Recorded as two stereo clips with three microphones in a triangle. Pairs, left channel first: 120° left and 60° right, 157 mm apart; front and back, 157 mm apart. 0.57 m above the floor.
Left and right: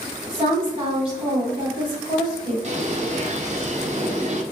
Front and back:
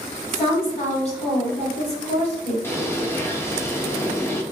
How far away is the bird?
About 0.5 m.